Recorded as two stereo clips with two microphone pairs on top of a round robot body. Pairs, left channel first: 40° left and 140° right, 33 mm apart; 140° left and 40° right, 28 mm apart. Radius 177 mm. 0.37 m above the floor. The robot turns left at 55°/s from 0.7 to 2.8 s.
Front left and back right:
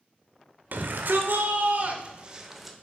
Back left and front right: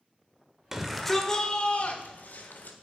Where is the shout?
115° right, 1.7 m; by 2.8 s 130° left, 1.7 m.